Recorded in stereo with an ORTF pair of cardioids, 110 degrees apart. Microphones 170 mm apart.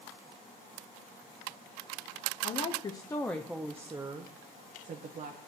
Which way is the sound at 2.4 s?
40° left.